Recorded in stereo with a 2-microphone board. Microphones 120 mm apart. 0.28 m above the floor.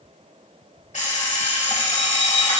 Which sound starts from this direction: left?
An alarm clock, at 0.9 s.